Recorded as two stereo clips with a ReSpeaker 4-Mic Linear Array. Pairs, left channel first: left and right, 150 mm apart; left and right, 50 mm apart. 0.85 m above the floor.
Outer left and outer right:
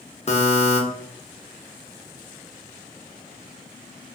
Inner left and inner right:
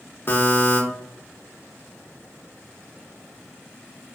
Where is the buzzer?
45° left (ahead or behind), 0.6 m.